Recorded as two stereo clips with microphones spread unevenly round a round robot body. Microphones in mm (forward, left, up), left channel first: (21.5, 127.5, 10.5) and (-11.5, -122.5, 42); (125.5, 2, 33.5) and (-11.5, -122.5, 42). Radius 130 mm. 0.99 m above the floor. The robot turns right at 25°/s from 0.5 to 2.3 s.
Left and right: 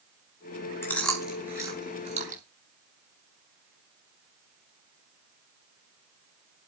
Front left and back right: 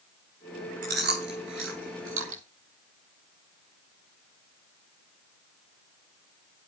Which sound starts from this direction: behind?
Chewing, at 0.8 s.